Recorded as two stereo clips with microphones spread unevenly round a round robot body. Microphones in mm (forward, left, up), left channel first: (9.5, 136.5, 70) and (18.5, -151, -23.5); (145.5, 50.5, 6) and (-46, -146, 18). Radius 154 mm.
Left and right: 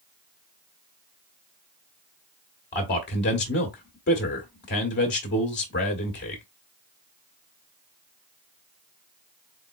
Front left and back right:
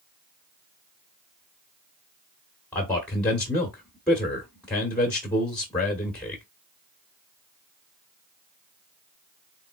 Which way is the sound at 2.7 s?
115° left.